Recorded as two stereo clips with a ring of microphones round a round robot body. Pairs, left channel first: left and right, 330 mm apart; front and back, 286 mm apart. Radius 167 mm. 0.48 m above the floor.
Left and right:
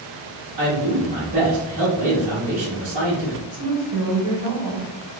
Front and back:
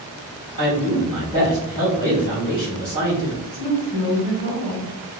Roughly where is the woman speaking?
Right.